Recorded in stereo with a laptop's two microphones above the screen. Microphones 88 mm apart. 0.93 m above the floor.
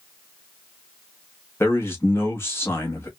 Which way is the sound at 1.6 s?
30° left (ahead or behind).